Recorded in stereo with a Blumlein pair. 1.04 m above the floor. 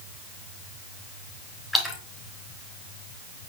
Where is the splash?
Straight ahead, 4 m.